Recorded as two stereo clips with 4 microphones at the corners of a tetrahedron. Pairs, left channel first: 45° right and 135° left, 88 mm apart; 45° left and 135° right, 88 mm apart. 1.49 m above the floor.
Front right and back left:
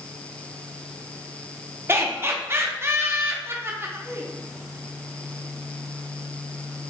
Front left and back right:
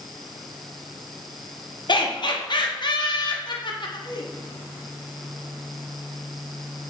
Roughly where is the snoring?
I don't hear snoring.